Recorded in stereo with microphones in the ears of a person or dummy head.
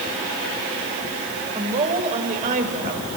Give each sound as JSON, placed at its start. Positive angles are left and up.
{"t": 1.6, "sound": "a woman speaking", "side_deg": -35, "distance_m": 6.0}